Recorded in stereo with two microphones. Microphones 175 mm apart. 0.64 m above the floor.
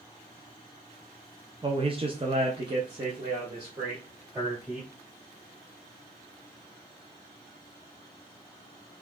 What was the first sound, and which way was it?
A man speaking, 30° right (ahead or behind).